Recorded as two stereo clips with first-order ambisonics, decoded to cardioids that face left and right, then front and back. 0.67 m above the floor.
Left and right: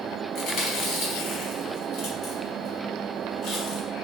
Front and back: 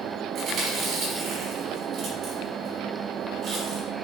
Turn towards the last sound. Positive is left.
turn(degrees=130)